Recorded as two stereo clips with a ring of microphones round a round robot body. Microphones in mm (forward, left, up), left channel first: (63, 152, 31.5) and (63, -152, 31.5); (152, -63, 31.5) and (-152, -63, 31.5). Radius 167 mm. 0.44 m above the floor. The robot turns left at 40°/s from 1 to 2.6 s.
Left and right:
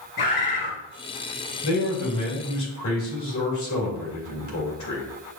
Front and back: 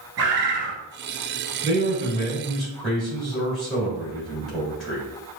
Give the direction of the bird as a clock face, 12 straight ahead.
8 o'clock.